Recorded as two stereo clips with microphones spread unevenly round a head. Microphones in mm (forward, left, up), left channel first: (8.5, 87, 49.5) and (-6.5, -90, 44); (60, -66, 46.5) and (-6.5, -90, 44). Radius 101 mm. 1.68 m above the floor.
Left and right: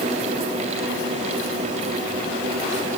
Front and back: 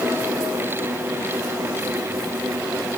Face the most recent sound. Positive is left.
No sound to turn to.